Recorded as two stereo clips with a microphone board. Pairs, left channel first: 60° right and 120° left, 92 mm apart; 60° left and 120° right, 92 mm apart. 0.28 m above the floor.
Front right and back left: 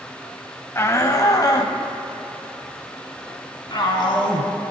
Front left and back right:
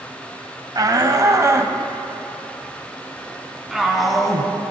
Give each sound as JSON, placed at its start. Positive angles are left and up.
{"t": 0.8, "sound": "a shout", "azimuth_deg": -105, "distance_m": 1.3}